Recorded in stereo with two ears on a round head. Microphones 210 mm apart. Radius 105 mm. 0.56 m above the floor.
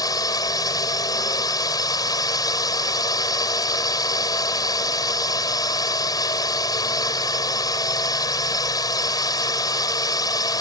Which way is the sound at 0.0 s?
15° left (ahead or behind).